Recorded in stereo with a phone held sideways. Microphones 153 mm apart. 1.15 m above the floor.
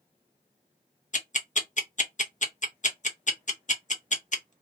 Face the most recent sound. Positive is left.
turn(degrees=55)  # may be behind; listen again after turning